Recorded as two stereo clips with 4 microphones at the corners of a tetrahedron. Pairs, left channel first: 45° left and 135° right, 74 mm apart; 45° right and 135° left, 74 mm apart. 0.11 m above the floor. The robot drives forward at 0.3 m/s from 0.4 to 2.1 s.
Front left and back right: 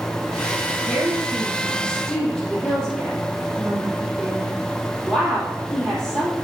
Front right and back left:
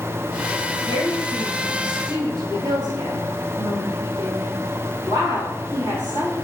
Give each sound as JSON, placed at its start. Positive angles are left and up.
{"t": 0.9, "sound": "a woman speaking", "azimuth_deg": 120, "distance_m": 3.0}